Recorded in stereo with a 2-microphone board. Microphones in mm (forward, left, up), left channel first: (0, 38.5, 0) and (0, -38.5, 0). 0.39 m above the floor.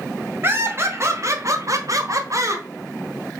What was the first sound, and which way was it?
Laughter, 30° right (ahead or behind).